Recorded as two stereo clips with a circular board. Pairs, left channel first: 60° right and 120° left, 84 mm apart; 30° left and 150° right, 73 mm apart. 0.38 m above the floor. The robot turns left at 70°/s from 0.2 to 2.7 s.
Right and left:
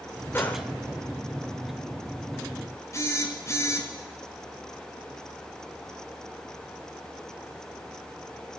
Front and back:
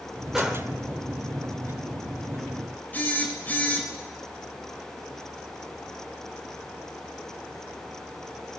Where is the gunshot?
70° right, 1.3 m; by 0.7 s 95° right, 1.3 m.